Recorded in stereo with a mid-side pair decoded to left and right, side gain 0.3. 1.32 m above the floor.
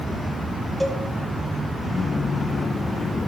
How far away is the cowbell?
About 2.5 m.